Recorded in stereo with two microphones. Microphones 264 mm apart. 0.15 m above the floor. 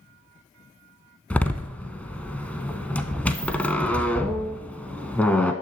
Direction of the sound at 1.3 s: 5° left (ahead or behind).